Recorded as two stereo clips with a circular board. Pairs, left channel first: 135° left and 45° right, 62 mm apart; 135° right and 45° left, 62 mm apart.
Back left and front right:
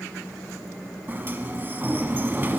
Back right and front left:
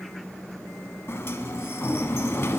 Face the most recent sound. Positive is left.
turn(degrees=-95)